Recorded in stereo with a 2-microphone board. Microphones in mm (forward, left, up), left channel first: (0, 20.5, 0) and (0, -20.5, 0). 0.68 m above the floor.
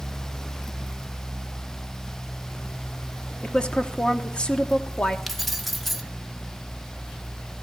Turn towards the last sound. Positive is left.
turn(degrees=0)  # may be behind; listen again after turning